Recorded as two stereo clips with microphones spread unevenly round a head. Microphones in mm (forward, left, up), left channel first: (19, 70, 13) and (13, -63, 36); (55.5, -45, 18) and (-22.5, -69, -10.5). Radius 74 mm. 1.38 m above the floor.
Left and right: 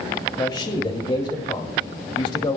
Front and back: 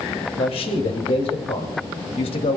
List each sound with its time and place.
0.4 s a man speaking: 30° left, 2.5 m